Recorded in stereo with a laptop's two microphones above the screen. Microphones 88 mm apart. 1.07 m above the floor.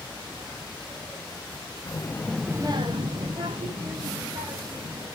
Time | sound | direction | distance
1.9 | a child speaking | 35° left (ahead or behind) | 1.2 m